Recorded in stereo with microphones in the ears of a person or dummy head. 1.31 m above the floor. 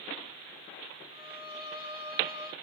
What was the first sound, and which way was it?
A violin, 50° left (ahead or behind).